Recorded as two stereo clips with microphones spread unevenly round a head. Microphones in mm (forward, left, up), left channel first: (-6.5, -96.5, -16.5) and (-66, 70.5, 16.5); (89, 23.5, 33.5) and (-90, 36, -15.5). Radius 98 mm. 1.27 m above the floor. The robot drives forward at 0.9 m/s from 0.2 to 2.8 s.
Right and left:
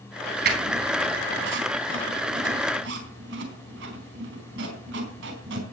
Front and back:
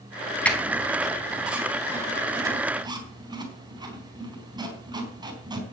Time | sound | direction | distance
0.5 | a squeak | 75° left | 4 m